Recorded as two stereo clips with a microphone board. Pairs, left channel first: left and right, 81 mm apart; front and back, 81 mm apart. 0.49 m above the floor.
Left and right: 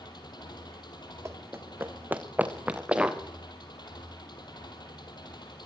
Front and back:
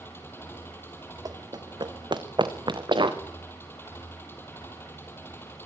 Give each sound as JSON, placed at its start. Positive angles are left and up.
{"t": 0.0, "sound": "an engine running", "azimuth_deg": 65, "distance_m": 7.0}
{"t": 1.2, "sound": "running footsteps", "azimuth_deg": -145, "distance_m": 1.9}